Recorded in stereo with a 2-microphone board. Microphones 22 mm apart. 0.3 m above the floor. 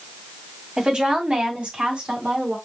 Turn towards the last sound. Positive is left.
turn(degrees=-55)  # may be behind; listen again after turning